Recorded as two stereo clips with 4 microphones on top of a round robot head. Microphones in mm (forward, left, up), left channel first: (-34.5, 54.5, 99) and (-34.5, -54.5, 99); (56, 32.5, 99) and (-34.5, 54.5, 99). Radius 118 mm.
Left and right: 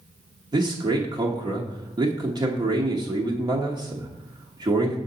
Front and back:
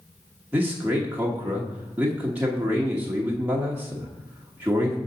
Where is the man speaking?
125° right, 1.0 m.